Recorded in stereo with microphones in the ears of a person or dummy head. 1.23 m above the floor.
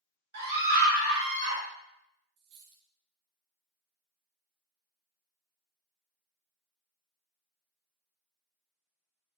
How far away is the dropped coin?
About 1.3 m.